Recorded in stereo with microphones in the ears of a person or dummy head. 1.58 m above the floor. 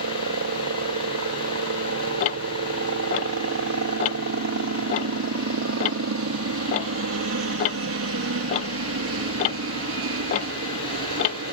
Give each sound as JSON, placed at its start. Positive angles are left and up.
{"t": 0.0, "sound": "a helicopter", "side_deg": -65}
{"t": 2.2, "sound": "ticking", "side_deg": 35}